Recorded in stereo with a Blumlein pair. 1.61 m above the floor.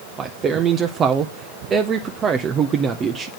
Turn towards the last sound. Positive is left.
turn(degrees=-25)